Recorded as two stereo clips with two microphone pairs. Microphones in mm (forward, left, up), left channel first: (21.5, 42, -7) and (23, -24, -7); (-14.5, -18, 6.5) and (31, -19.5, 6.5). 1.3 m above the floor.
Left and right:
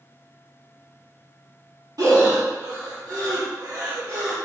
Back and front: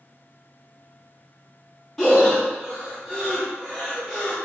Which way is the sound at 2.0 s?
105° right.